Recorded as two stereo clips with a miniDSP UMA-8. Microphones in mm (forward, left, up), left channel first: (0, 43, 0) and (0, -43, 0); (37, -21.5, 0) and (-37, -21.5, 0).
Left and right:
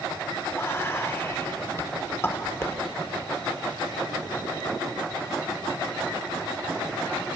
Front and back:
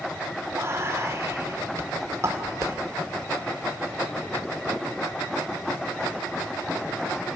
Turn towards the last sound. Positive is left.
turn(degrees=145)